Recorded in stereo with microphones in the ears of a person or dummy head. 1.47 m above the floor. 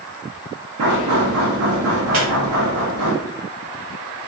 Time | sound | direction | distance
0.8 | knocking | 85° right | 0.7 m
2.1 | a squeak | 45° right (ahead or behind) | 1.8 m